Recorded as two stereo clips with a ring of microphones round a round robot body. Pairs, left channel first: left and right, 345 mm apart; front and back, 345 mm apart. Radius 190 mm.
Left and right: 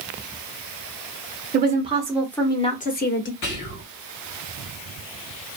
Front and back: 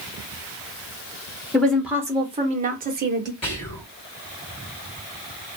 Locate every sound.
1.5 s a woman speaking: 80° right, 0.9 m; by 3.3 s 130° left, 1.2 m
3.4 s whispering: 70° left, 1.9 m